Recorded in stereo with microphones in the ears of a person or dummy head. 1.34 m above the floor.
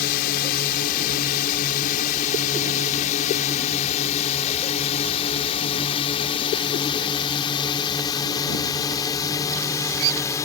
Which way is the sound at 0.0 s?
50° left (ahead or behind).